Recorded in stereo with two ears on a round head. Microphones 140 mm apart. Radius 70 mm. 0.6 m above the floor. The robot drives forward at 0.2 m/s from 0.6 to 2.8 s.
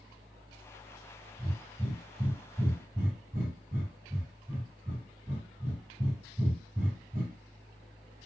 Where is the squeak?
I don't hear a squeak.